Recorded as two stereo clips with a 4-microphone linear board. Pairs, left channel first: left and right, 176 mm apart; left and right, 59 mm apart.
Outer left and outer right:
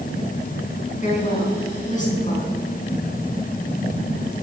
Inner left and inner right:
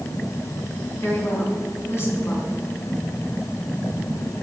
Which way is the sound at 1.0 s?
45° left (ahead or behind).